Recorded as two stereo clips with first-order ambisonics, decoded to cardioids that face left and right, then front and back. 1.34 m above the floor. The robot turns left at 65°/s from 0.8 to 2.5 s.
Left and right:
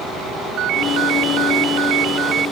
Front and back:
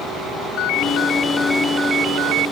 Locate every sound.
0.6 s a ringtone: 40° right; by 2.5 s 155° right